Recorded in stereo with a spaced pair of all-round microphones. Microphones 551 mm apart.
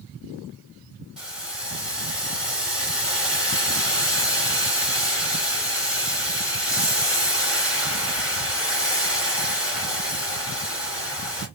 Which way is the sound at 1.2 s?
Centre (ahead or behind).